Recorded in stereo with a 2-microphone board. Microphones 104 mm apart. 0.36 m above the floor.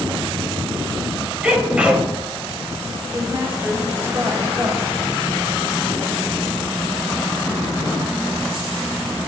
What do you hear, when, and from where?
1.4 s a sneeze: 10° right (ahead or behind), 1.6 m
3.1 s a woman speaking: 25° right (ahead or behind), 2.0 m